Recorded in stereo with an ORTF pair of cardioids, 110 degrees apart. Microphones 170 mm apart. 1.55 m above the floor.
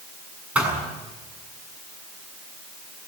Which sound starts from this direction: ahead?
A thud, at 0.6 s.